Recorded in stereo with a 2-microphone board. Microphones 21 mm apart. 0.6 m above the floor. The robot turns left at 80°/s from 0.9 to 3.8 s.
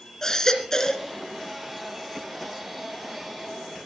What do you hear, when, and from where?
0.2 s a baby crying: 25° left (ahead or behind), 3.5 m; by 1.1 s 10° left (ahead or behind), 3.5 m